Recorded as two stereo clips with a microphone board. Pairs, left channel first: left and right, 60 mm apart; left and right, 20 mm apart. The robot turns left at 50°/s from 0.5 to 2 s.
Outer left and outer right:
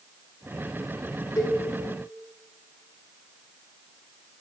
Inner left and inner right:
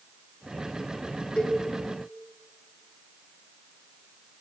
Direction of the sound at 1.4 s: 80° left.